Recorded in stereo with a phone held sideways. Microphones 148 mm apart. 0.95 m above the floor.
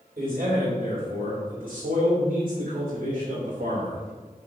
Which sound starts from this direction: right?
A man speaking, at 0.2 s.